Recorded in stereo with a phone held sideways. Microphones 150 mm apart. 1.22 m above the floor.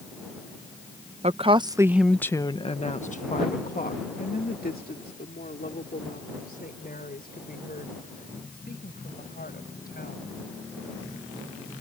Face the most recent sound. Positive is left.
turn(degrees=90)